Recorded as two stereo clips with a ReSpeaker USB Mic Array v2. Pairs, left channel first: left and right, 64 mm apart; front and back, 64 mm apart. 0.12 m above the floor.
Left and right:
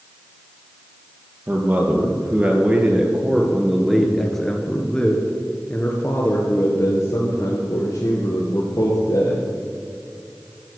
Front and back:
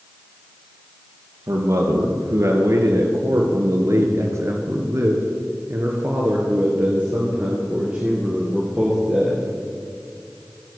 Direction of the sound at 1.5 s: 145° right.